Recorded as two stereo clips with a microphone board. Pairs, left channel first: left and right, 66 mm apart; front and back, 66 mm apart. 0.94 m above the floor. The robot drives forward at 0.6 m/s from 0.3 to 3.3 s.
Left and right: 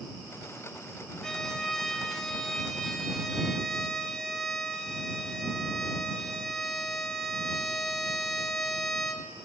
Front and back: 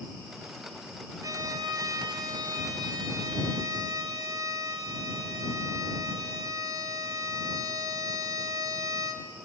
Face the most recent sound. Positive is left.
turn(degrees=175)